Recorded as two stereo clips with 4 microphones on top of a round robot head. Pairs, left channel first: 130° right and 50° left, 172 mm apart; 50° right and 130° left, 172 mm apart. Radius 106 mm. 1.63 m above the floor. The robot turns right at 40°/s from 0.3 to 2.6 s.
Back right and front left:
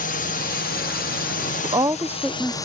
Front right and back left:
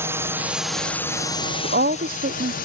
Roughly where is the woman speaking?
Left.